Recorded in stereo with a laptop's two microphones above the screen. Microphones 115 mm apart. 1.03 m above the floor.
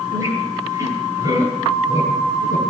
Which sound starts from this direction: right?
A squeak, at 0.1 s.